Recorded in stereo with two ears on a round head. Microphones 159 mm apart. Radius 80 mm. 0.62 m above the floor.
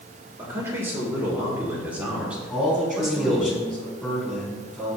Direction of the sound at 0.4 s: 15° right (ahead or behind).